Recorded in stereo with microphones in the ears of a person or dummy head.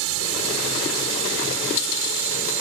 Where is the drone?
70° right (ahead or behind); by 2.6 s 65° right (ahead or behind).